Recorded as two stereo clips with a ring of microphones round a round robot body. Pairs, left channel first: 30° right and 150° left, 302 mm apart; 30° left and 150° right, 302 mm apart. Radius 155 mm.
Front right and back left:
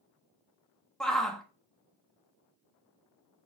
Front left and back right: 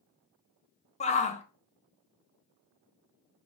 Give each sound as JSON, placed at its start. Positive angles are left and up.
{"t": 1.0, "sound": "a shout", "azimuth_deg": 55, "distance_m": 0.7}